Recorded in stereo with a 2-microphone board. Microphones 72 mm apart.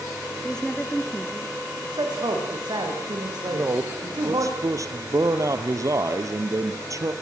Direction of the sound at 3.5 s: 50° right (ahead or behind).